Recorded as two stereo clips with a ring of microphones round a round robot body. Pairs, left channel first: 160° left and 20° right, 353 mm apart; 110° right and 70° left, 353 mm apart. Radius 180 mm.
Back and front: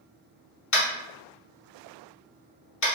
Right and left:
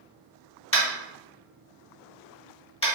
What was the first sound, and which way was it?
Tapping, 175° right.